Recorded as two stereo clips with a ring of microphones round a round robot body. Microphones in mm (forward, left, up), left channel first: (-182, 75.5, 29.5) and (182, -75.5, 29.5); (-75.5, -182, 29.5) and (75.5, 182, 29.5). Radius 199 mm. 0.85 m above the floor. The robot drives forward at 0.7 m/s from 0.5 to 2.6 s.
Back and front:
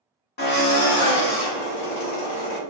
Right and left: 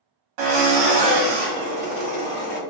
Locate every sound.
0.4 s a drill: 90° left, 1.0 m; by 2.6 s 145° left, 1.8 m